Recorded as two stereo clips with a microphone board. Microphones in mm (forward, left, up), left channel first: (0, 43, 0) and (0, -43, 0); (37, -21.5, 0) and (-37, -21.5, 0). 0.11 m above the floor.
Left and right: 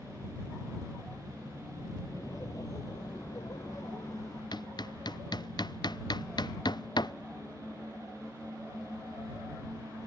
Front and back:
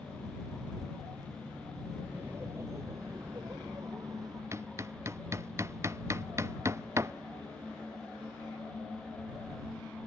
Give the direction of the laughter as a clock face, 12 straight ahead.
8 o'clock.